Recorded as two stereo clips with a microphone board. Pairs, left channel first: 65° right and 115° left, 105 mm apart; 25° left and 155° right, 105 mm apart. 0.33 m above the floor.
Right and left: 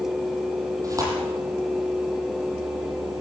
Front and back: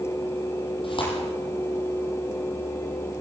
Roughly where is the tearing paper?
Ahead left.